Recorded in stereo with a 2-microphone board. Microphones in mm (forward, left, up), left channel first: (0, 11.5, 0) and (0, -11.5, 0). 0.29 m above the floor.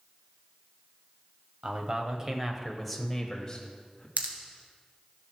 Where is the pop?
65° right (ahead or behind), 1.7 m.